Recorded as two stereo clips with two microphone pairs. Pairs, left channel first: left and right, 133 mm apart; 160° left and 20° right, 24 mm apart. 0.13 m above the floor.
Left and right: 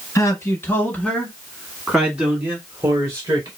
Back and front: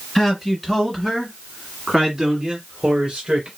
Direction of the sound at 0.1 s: 110° left.